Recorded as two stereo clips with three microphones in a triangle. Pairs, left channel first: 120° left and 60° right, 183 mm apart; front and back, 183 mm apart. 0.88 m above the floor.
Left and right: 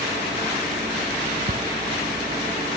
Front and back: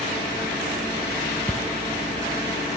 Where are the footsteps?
80° right, 1.6 m.